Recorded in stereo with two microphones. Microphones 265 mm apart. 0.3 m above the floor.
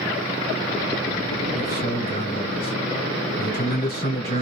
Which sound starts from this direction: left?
A man speaking, at 1.6 s.